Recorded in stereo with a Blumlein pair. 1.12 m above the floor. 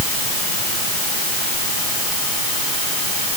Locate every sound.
Only background noise.